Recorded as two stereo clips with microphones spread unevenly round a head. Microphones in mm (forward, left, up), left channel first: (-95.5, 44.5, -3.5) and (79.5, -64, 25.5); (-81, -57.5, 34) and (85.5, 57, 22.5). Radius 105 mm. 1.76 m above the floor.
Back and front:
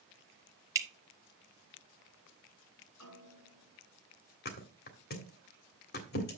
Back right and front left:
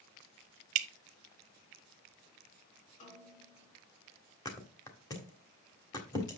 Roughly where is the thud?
Behind left.